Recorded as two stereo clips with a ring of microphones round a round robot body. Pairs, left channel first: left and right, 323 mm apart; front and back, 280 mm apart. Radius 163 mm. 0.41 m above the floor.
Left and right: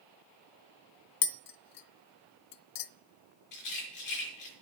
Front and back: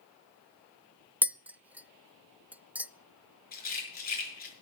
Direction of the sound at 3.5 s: 60° left.